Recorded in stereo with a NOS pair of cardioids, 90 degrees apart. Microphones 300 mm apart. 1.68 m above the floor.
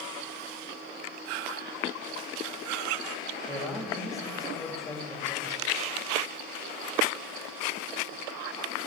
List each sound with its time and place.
3.5 s a man speaking: straight ahead, 2.5 m